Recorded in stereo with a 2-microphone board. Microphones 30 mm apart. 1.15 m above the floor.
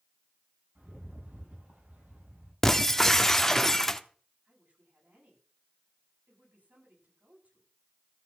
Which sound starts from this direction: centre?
Breaking glass, at 2.6 s.